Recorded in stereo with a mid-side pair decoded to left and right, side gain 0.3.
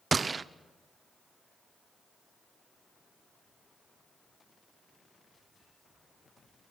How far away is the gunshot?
About 0.8 m.